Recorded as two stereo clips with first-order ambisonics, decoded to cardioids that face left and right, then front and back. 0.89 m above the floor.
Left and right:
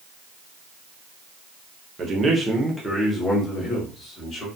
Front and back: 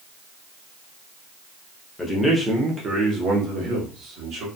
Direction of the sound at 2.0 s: 65° right.